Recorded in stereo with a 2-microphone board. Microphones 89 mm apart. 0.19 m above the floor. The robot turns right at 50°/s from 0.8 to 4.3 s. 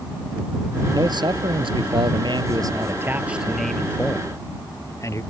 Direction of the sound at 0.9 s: 130° right.